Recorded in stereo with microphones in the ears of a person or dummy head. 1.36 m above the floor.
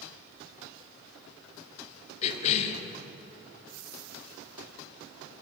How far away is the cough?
About 0.7 m.